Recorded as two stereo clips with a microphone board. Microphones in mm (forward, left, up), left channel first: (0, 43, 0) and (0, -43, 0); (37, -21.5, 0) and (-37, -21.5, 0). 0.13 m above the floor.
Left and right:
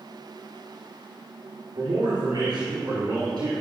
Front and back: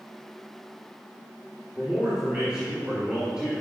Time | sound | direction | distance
1.8 | a man speaking | 100° right | 2.5 m